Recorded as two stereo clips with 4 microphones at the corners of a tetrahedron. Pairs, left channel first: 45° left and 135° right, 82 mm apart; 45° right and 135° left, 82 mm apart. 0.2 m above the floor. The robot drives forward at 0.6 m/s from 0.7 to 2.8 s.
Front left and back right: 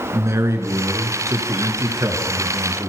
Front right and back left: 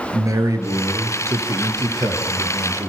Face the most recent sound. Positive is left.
turn(degrees=180)